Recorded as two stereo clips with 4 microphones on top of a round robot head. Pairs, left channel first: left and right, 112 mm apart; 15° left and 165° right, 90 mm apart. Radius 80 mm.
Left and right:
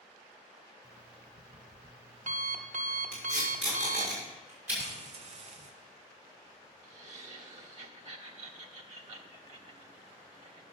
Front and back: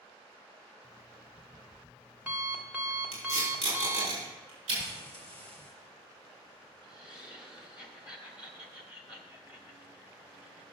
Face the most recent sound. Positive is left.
turn(degrees=-90)